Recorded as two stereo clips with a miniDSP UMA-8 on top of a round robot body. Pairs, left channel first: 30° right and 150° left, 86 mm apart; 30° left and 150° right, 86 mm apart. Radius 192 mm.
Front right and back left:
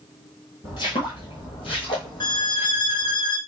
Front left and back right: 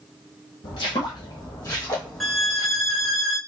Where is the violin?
60° right, 1.1 m.